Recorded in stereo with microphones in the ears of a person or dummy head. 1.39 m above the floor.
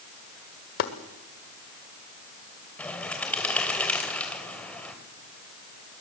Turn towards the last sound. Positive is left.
turn(degrees=5)  # may be behind; listen again after turning